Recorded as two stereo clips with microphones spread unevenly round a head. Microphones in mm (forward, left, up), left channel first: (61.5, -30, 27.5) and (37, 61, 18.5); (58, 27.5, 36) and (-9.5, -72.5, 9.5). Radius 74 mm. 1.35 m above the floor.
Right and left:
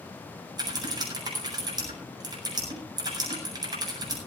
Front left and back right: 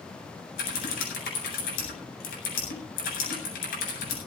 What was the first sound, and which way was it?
Typing on a keyboard, 65° left.